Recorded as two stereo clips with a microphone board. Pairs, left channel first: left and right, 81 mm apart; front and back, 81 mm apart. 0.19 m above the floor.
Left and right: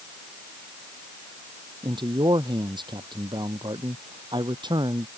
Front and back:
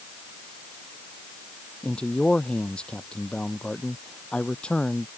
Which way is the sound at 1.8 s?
75° right.